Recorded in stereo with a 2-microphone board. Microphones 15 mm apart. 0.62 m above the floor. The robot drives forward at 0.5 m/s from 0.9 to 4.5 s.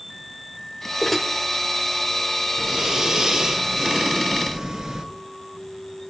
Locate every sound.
1.0 s dishes clattering: 10° left (ahead or behind), 1.6 m
2.6 s breathing: 35° right (ahead or behind), 4 m; by 5.0 s 25° right (ahead or behind), 4.5 m